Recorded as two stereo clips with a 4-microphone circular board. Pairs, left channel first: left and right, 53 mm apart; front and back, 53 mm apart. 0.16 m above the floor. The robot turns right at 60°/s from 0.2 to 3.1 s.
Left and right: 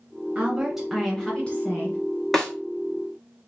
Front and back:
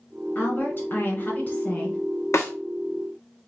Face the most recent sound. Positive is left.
turn(degrees=55)